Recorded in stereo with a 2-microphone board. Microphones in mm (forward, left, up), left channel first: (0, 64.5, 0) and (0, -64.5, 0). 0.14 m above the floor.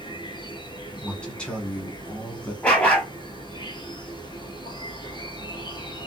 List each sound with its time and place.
0.0 s an insect: 35° left (ahead or behind), 1.2 m
1.0 s a man speaking: 10° left (ahead or behind), 1.5 m
2.6 s a dog barking: 10° left (ahead or behind), 1.3 m